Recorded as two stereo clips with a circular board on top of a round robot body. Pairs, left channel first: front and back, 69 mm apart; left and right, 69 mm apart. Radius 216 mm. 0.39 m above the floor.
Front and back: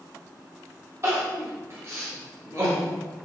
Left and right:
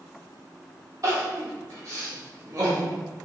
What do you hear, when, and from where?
1.0 s crying: 130° right, 1.5 m